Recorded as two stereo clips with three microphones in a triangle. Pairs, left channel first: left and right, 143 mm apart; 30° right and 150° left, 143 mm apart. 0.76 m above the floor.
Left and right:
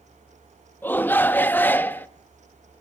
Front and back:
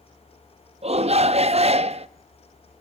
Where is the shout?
160° left, 0.6 m.